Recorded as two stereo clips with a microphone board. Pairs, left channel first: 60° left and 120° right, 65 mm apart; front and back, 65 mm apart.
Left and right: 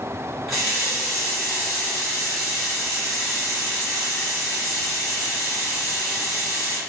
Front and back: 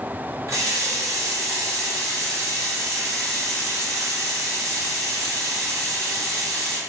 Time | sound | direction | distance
0.5 | a running tap | 150° left | 1.9 m